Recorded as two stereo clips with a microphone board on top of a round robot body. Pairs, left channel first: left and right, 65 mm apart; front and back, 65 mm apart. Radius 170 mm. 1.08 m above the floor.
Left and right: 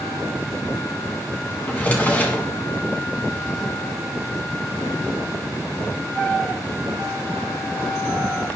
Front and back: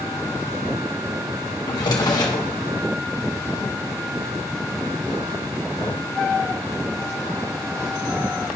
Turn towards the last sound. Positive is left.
turn(degrees=25)